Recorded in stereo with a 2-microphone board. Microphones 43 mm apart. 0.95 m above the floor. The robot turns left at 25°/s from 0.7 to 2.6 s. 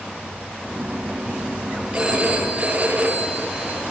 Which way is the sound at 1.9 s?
20° right (ahead or behind).